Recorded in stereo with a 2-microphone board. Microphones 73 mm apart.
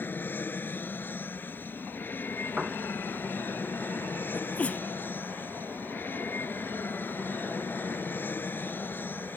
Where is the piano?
10° right (ahead or behind).